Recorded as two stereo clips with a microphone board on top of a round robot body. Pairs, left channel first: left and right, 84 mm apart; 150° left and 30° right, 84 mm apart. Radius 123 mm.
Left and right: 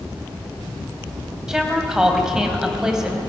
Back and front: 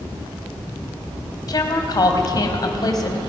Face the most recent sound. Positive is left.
turn(degrees=-175)